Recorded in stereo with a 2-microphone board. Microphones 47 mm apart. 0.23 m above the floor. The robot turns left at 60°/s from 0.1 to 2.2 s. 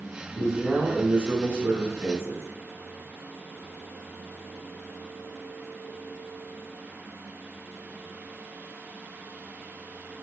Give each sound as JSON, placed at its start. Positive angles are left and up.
{"t": 0.3, "sound": "a man speaking", "azimuth_deg": 10, "distance_m": 1.3}